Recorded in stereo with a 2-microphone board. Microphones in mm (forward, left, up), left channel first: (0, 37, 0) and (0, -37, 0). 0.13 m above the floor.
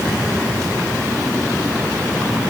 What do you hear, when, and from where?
Only background noise.